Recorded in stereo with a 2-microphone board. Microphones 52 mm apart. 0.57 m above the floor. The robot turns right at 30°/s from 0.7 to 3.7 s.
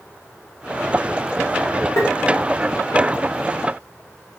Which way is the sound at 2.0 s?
55° left (ahead or behind).